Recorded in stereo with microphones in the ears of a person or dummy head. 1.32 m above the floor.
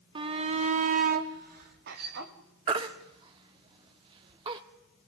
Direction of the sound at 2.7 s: 25° right (ahead or behind).